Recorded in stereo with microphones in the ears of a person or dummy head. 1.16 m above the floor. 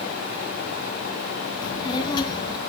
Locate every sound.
1.6 s a child speaking: 25° left (ahead or behind), 1.1 m